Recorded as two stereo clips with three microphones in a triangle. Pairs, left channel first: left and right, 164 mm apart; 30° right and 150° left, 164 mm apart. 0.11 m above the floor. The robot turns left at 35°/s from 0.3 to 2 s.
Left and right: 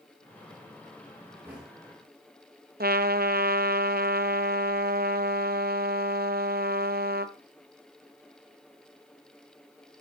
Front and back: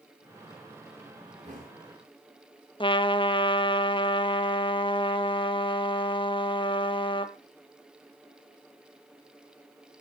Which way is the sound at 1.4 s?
165° right.